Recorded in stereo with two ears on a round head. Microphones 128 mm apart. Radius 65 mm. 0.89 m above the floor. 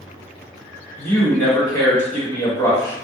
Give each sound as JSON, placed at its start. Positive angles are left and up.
{"t": 1.0, "sound": "a man speaking", "side_deg": 25, "distance_m": 1.4}